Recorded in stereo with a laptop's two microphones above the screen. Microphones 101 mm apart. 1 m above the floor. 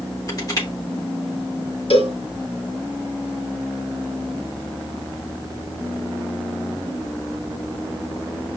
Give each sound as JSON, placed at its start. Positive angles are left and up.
{"t": 0.3, "sound": "crushing", "side_deg": 40, "distance_m": 3.5}
{"t": 1.9, "sound": "a cowbell", "side_deg": 65, "distance_m": 3.5}